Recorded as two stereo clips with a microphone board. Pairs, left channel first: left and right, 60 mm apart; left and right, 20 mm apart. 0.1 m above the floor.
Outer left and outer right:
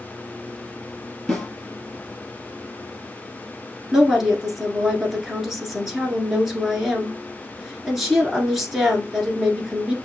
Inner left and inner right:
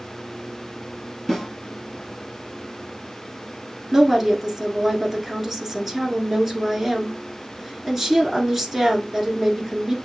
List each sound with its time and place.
1.3 s a snare drum: 10° left (ahead or behind), 1.6 m
3.9 s a woman speaking: 5° right (ahead or behind), 1.3 m